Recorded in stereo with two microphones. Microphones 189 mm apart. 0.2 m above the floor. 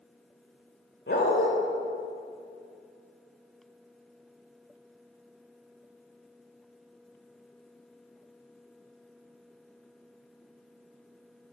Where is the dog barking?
70° left (ahead or behind), 4 m.